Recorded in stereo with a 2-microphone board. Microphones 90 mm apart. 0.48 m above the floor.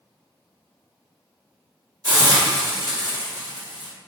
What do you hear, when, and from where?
2.0 s a hiss: 45° right (ahead or behind), 1.1 m